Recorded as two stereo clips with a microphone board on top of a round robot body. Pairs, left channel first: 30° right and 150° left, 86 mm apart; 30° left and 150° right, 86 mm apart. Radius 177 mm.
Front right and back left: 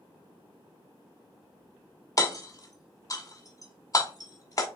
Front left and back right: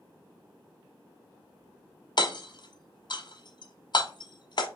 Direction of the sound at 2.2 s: 15° left.